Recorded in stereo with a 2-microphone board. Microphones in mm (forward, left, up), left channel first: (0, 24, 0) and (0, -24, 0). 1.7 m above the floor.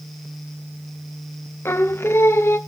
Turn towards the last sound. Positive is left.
turn(degrees=60)  # may be behind; listen again after turning